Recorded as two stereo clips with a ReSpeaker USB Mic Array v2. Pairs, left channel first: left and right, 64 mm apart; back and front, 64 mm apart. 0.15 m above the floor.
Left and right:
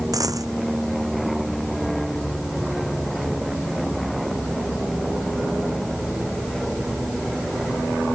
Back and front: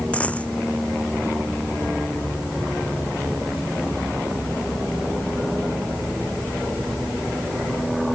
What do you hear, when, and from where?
0.1 s a dropped coin: 110° right